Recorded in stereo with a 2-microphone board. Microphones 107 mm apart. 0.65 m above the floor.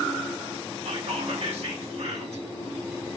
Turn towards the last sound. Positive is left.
turn(degrees=-70)  # may be behind; listen again after turning